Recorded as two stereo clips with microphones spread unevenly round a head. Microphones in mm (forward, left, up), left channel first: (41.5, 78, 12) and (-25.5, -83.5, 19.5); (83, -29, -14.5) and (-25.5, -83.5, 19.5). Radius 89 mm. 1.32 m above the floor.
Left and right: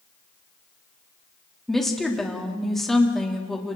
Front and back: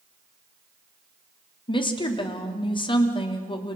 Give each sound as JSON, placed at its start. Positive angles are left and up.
{"t": 1.7, "sound": "a woman speaking", "azimuth_deg": -20, "distance_m": 3.0}